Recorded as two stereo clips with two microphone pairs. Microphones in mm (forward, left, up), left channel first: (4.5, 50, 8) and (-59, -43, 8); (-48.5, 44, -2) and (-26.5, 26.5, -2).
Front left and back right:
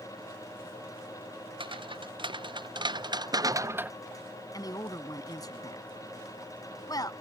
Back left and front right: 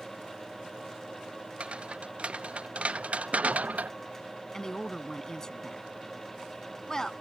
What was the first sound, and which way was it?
Footsteps, 85° right.